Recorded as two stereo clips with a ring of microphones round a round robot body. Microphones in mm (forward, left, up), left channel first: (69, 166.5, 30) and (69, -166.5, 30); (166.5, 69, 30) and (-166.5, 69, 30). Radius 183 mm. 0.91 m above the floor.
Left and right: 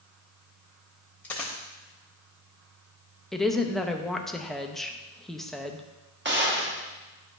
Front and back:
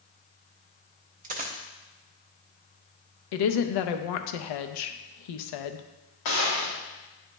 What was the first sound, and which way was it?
A dropped coin, 170° left.